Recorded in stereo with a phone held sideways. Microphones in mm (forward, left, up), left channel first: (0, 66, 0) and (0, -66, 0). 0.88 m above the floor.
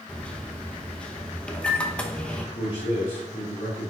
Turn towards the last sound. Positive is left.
turn(degrees=50)  # may be behind; listen again after turning